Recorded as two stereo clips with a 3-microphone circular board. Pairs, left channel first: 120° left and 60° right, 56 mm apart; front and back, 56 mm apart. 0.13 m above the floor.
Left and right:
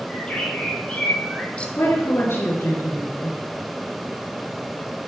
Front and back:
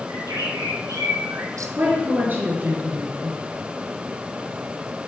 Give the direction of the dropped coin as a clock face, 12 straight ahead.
No dropped coin in this recording.